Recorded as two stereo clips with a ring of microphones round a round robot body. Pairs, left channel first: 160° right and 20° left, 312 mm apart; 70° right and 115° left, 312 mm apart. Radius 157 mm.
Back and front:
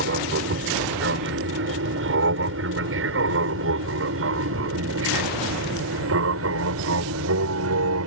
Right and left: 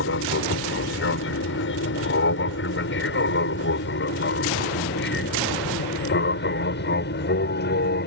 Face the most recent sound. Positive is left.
turn(degrees=-15)